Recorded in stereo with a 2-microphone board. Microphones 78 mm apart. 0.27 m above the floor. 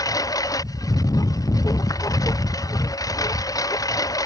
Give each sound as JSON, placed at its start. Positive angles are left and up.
{"t": 0.0, "sound": "a lawn mower", "side_deg": 50}